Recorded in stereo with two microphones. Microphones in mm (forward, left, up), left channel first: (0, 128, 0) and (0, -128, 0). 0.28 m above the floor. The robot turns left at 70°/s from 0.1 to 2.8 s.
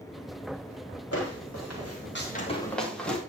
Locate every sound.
1.1 s footsteps: 65° left (ahead or behind), 8.5 m; by 3.2 s 5° left (ahead or behind), 6.5 m